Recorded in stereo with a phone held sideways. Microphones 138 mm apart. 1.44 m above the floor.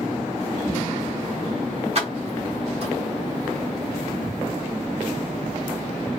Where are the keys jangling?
45° right (ahead or behind), 1.0 m.